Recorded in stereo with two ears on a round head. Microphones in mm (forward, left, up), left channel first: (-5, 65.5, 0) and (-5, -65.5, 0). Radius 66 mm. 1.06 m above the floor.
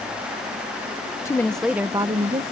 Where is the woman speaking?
20° left (ahead or behind); by 2.4 s 40° right (ahead or behind).